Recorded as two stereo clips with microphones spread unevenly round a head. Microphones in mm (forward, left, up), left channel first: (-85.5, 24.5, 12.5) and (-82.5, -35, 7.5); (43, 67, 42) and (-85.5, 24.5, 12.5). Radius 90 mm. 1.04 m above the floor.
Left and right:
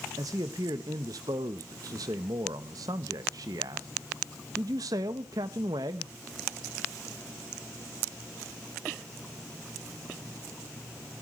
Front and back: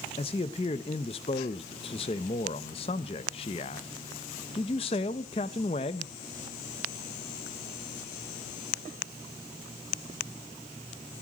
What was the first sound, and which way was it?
A man speaking, 40° right.